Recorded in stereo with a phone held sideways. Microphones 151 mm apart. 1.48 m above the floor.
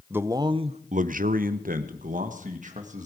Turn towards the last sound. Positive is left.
turn(degrees=-55)  # may be behind; listen again after turning